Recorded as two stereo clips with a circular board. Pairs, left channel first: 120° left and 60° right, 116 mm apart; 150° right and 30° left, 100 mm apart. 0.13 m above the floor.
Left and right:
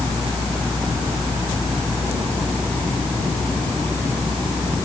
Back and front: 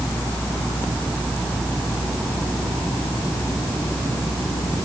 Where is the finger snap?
No finger snap in this recording.